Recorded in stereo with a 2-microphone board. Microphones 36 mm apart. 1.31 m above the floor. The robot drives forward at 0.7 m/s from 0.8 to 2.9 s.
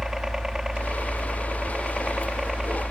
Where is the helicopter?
15° right (ahead or behind).